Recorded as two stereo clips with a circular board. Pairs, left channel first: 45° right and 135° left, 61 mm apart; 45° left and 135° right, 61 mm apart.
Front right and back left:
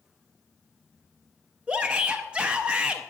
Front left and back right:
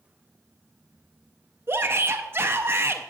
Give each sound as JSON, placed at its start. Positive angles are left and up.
{"t": 1.7, "sound": "a shout", "azimuth_deg": -160, "distance_m": 0.6}